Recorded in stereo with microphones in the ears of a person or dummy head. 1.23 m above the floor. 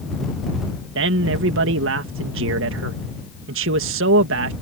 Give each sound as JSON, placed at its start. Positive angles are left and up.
{"t": 0.9, "sound": "a man speaking", "side_deg": -60}